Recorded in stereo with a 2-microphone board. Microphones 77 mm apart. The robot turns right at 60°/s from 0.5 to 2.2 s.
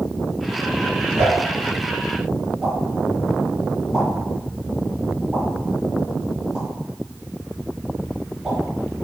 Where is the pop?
40° right (ahead or behind), 1.9 m; by 8.6 s 10° right (ahead or behind), 1.9 m.